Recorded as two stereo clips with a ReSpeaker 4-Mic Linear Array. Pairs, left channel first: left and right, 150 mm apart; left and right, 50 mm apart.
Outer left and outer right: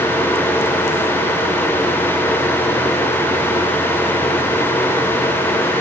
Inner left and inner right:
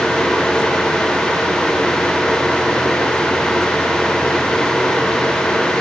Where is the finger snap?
No finger snap in this recording.